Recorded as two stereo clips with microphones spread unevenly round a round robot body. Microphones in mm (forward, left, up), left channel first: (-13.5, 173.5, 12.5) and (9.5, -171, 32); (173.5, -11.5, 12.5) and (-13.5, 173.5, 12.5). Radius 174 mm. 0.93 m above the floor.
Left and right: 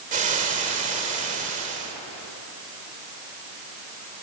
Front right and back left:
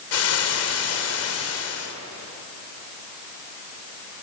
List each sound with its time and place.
0.1 s frying: 15° right, 3 m